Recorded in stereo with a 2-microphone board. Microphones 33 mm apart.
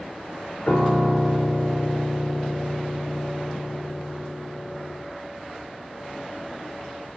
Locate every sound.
0.7 s a piano: 35° left (ahead or behind), 1.8 m